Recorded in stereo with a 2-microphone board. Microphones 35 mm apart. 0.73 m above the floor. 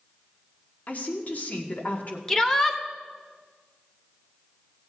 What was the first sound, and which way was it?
A woman speaking, 50° left (ahead or behind).